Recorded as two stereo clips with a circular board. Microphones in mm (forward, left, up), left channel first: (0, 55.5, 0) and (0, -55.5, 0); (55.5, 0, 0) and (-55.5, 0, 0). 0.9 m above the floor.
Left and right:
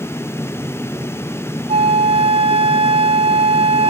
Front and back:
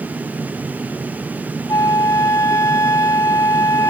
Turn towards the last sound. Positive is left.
turn(degrees=-60)